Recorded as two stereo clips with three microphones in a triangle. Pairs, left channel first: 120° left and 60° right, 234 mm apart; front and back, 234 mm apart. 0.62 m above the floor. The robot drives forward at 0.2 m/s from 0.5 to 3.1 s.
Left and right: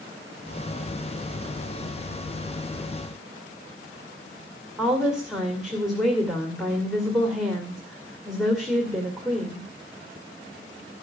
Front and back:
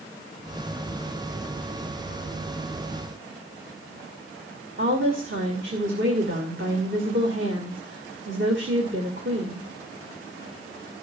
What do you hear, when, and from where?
4.8 s a woman speaking: 150° right, 2.5 m